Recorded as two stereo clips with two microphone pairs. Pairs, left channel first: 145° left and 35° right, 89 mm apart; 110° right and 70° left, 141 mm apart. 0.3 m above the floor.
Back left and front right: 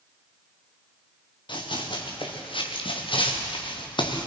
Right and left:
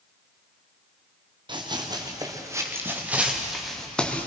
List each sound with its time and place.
1.5 s running footsteps: 125° left, 4 m; by 4.3 s 170° left, 3 m